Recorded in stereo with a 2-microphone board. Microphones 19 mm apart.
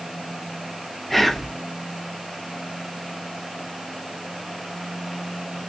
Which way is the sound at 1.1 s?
10° left (ahead or behind).